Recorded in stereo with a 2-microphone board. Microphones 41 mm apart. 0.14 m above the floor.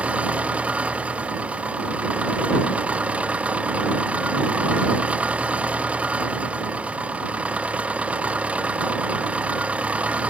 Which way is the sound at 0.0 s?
30° right (ahead or behind).